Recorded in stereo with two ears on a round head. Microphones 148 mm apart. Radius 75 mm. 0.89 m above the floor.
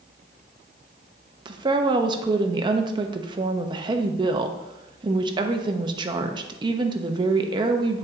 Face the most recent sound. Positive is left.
turn(degrees=-30)  # may be behind; listen again after turning